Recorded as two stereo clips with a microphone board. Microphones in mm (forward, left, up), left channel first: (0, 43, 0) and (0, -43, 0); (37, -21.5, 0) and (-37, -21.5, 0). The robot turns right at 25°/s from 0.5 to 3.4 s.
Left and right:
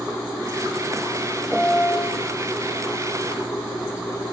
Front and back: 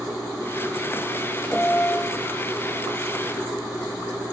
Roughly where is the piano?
Ahead right.